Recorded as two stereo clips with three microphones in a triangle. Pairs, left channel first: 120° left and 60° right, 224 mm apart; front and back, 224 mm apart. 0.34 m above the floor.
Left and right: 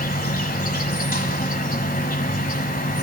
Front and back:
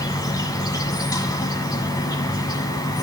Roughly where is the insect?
Left.